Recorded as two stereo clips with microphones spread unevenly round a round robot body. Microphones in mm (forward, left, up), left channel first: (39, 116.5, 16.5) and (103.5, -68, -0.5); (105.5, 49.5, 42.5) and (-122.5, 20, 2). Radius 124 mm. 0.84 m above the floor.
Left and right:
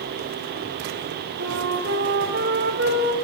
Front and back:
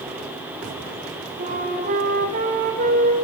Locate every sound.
1.4 s a flute: 115° right, 2 m